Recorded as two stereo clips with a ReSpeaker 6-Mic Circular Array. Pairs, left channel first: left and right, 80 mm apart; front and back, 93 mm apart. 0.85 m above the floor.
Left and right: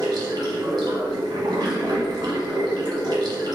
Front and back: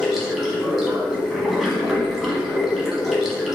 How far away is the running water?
About 1.4 m.